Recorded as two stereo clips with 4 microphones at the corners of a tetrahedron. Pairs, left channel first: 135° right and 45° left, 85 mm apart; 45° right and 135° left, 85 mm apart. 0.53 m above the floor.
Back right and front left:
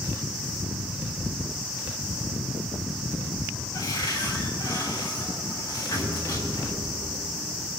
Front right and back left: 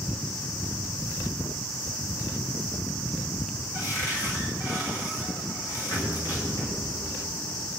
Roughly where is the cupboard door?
Right.